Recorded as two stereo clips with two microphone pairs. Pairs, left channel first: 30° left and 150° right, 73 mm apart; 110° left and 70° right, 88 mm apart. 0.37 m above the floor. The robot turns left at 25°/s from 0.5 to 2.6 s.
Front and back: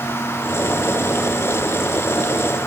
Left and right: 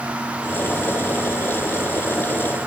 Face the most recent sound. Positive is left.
No sound to turn to.